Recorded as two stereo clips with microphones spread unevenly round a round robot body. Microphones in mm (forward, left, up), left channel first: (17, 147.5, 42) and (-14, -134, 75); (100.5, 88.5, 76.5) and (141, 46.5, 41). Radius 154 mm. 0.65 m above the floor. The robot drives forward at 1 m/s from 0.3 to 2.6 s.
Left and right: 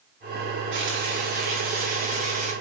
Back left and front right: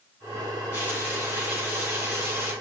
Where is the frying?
145° right, 2.5 m; by 2.5 s 160° right, 4.5 m.